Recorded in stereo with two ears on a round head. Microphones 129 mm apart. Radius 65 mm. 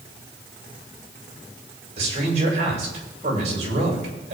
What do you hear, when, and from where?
2.0 s a man speaking: 50° right (ahead or behind), 7.5 m